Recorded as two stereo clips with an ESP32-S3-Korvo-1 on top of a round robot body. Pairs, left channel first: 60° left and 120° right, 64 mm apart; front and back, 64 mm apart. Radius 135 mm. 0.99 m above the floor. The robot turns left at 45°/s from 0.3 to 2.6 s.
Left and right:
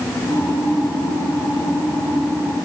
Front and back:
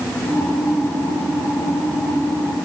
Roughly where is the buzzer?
No buzzer in this recording.